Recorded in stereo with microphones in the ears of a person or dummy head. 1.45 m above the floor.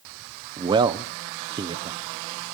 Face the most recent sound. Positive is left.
turn(degrees=-20)  # may be behind; listen again after turning